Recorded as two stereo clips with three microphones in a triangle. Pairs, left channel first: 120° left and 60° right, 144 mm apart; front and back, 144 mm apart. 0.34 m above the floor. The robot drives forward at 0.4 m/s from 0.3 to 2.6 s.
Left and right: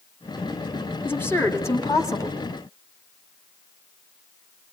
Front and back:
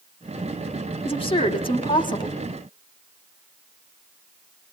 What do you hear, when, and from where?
1.1 s a woman speaking: 45° left, 2.5 m; by 2.4 s 55° left, 2 m